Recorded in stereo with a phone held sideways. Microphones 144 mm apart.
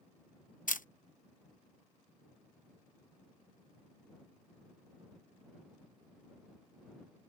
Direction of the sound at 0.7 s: 75° left (ahead or behind).